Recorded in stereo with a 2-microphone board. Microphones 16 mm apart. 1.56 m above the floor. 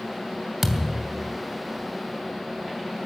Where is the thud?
20° right (ahead or behind), 2.5 m.